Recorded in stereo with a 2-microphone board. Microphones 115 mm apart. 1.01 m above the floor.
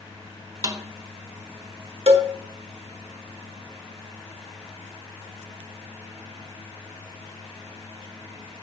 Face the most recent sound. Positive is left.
turn(degrees=-55)  # may be behind; listen again after turning